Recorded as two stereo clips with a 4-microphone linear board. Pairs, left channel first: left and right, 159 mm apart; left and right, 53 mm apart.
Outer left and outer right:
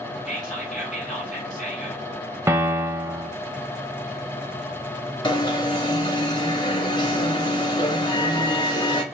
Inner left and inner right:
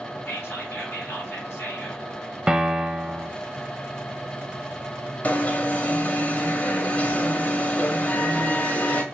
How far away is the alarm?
About 0.7 m.